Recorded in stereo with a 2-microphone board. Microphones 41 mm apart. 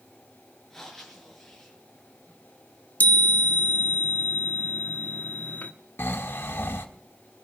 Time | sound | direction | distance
0.7 | breathing | 5° left (ahead or behind) | 5.5 m
3.0 | a chime | 50° left (ahead or behind) | 1.0 m
6.0 | snoring | 75° left (ahead or behind) | 1.4 m